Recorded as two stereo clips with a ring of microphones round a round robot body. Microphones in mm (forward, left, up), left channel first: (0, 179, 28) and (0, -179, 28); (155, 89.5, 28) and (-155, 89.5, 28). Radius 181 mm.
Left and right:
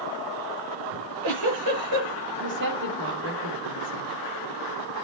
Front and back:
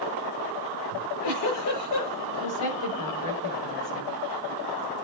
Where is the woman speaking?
30° right, 3 m.